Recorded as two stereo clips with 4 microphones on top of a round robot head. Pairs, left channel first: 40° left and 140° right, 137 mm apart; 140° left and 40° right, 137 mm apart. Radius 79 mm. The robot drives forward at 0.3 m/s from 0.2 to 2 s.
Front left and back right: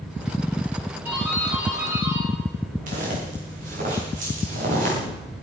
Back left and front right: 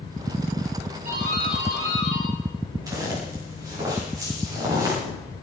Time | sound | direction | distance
1.1 | a doorbell | 60° right | 9 m
2.9 | footsteps | 105° right | 7.5 m